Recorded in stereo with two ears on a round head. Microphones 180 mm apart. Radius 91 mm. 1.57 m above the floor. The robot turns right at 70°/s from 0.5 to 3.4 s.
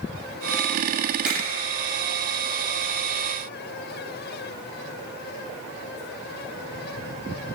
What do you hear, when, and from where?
1.2 s a finger snap: 5° right (ahead or behind), 1.4 m; by 1.4 s 10° right (ahead or behind), 1.4 m